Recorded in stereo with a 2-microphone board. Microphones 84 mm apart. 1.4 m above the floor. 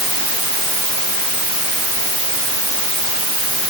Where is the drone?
I don't hear a drone.